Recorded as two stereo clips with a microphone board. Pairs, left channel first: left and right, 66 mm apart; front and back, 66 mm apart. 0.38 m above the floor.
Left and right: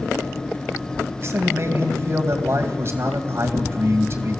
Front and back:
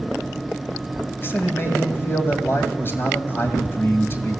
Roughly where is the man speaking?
Ahead right.